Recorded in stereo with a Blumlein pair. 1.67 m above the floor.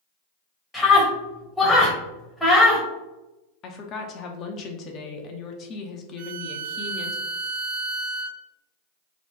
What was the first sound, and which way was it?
A scream, straight ahead.